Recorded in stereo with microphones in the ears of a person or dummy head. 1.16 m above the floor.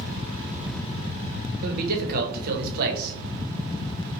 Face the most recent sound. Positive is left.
turn(degrees=-50)  # may be behind; listen again after turning